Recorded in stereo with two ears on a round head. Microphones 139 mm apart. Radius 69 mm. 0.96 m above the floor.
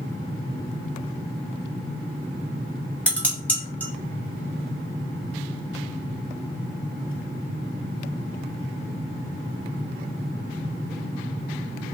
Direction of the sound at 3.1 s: 10° left (ahead or behind).